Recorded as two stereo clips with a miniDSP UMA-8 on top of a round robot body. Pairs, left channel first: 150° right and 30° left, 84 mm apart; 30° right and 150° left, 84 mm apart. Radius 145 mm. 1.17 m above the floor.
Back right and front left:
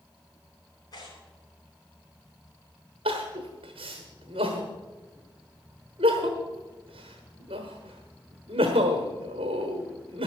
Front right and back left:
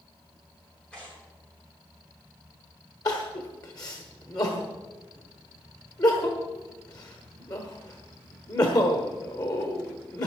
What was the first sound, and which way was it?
Tearing paper, 110° right.